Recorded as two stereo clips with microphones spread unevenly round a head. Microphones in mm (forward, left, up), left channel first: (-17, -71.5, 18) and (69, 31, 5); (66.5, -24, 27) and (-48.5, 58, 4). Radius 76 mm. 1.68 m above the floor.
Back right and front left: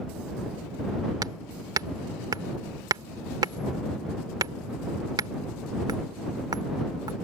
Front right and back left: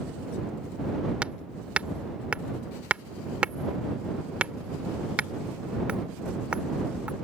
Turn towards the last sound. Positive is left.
turn(degrees=50)